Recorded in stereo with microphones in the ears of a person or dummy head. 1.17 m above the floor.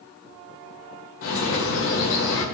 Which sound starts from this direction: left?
A bird, at 1.2 s.